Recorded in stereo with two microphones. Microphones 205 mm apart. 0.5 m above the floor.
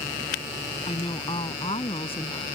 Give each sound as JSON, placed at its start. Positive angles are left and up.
{"t": 0.9, "sound": "a woman speaking", "side_deg": 30}